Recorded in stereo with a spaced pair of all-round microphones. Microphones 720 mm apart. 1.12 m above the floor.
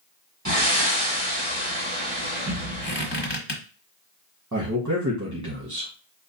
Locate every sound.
0.5 s breathing: 25° right (ahead or behind), 2.5 m
2.8 s a squeak: 35° left (ahead or behind), 1.3 m
4.5 s a man speaking: 25° right (ahead or behind), 1.6 m